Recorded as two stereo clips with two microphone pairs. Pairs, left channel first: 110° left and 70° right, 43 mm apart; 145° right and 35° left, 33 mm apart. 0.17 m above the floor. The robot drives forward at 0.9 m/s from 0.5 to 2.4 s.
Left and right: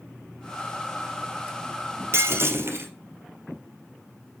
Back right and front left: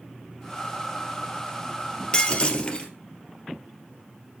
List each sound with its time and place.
2.1 s breaking glass: 80° right, 2 m; by 2.9 s 90° right, 2 m